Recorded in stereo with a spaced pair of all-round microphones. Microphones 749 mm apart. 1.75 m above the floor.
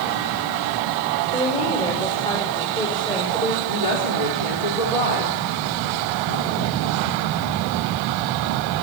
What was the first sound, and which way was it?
A woman speaking, 5° left (ahead or behind).